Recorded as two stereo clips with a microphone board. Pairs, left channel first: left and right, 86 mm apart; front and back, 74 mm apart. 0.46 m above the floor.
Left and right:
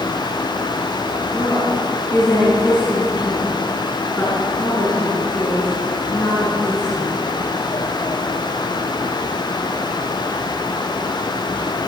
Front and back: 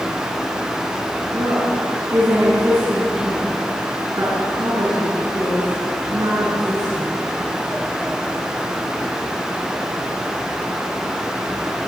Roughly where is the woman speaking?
Behind left.